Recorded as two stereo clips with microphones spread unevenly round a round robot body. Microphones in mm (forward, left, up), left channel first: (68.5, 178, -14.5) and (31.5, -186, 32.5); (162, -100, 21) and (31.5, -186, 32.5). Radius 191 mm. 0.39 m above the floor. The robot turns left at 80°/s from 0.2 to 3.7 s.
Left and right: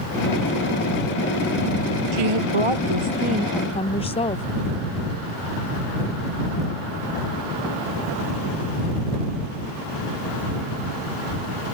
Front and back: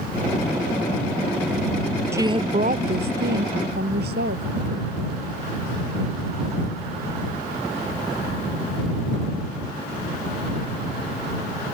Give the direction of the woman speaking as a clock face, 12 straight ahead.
2 o'clock.